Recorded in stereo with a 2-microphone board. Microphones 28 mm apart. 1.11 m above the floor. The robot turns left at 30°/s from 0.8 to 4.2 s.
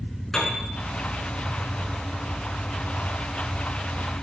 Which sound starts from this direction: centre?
A piano, at 0.3 s.